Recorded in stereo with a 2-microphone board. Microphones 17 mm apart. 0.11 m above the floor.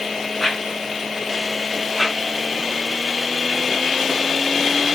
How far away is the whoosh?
About 7.5 m.